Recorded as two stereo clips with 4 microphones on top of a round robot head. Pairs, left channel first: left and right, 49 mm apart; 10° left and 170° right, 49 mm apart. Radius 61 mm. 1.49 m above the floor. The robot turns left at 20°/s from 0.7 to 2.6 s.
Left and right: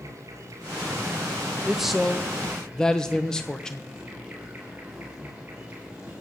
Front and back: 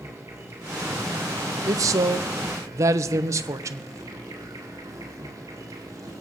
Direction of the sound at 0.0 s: 125° right.